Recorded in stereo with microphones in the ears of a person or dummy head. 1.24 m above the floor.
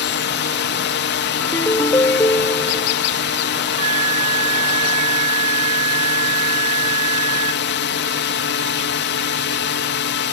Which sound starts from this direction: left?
A drone, at 0.0 s.